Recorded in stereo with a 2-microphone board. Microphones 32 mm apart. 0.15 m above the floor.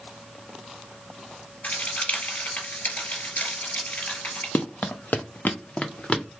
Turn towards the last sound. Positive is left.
turn(degrees=40)  # may be behind; listen again after turning